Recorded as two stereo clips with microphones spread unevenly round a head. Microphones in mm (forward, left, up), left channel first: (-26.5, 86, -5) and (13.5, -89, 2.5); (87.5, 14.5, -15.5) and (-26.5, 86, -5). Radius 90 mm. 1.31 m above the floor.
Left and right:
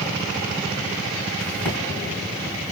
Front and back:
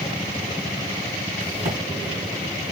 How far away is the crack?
About 1.7 m.